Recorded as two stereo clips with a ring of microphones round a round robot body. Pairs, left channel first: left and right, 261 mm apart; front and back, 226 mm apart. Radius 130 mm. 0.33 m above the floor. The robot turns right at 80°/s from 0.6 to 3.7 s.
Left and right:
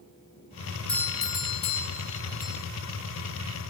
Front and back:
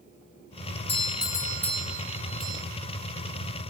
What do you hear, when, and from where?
0.9 s a doorbell: 10° left, 1.4 m; by 2.6 s 155° left, 1.4 m